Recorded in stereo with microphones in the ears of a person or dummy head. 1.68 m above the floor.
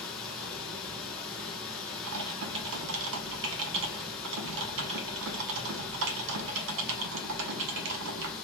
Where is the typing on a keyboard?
65° right (ahead or behind), 0.7 m.